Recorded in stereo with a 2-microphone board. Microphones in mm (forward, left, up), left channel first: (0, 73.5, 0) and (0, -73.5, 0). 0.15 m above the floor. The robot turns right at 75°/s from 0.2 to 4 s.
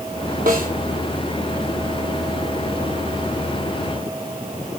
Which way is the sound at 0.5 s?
75° right (ahead or behind).